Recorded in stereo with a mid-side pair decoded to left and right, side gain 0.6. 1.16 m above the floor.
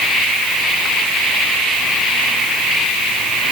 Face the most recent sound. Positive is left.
No sound to turn to.